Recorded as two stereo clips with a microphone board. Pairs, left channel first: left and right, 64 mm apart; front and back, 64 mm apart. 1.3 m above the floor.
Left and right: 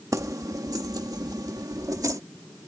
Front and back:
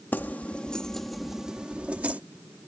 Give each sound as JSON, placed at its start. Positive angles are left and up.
{"t": 0.1, "sound": "keys jangling", "azimuth_deg": -60}